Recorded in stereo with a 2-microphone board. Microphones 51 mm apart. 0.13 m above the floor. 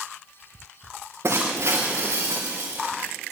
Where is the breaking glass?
60° right (ahead or behind), 3.5 m.